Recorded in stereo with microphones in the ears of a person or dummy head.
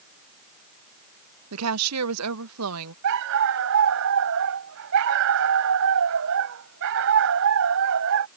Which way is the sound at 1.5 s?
80° right.